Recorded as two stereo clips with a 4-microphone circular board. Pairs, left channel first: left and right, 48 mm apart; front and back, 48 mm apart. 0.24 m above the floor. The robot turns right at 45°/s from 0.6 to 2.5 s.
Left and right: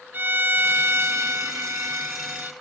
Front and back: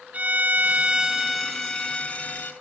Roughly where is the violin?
Behind right.